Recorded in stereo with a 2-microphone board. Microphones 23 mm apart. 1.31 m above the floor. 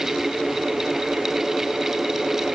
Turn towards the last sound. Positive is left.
No sound to turn to.